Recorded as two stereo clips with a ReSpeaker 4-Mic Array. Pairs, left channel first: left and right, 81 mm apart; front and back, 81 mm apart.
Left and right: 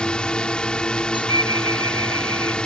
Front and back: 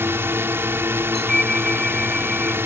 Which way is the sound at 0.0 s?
160° left.